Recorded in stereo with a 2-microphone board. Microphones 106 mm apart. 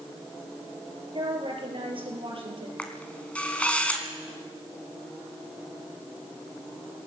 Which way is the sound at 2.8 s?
10° left (ahead or behind).